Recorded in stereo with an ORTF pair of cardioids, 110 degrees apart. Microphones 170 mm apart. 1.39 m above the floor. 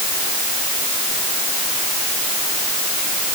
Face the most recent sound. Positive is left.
No sound to turn to.